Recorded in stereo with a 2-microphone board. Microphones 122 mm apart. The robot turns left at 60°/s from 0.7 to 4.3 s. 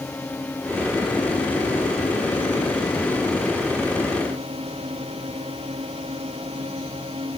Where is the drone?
165° left; by 7.4 s 50° right.